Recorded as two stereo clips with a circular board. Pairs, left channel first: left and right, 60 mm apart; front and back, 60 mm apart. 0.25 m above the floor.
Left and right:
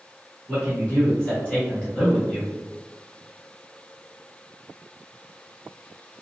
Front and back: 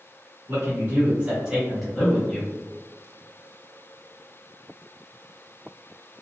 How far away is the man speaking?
About 1.4 m.